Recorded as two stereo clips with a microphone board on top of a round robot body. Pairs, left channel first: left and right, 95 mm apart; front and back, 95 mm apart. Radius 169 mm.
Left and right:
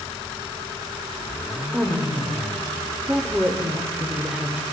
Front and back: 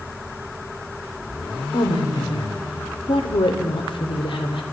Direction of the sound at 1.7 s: 10° right.